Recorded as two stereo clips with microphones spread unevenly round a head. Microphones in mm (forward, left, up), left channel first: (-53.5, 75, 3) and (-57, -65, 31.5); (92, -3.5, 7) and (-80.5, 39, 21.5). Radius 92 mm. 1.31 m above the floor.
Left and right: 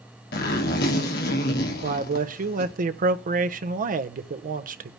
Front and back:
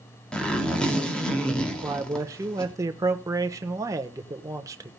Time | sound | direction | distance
0.3 | a zipper | 70° left | 2.5 m
1.8 | a man speaking | 120° right | 1.1 m